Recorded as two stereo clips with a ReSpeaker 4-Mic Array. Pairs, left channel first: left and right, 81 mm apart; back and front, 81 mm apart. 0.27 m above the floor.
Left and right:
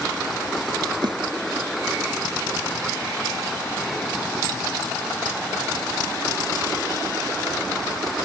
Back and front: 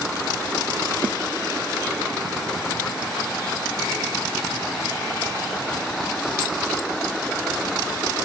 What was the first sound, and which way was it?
A snare drum, 75° right.